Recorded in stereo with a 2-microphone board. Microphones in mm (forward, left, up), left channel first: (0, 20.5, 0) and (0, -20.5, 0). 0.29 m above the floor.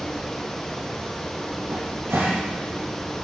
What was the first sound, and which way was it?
A cupboard door, 70° right (ahead or behind).